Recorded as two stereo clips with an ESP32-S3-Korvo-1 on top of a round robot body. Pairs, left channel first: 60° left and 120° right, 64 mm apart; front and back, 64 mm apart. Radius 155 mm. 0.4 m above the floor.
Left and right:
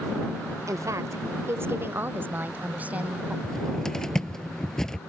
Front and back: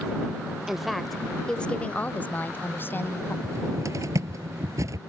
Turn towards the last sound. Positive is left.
turn(degrees=140)